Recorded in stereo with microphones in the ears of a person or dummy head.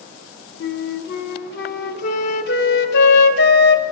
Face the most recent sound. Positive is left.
turn(degrees=55)  # may be behind; listen again after turning